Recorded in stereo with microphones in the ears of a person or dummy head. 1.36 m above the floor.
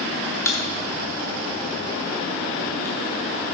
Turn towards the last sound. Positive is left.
turn(degrees=15)  # may be behind; listen again after turning